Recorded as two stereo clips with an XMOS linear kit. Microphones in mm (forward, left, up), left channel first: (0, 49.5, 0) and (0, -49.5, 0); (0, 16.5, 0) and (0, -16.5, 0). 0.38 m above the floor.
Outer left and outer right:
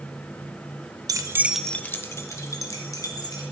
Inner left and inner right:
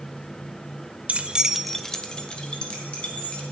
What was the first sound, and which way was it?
Keys jangling, 40° right (ahead or behind).